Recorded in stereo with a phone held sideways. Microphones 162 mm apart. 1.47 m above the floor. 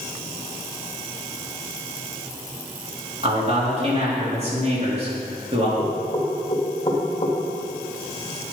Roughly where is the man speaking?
Right.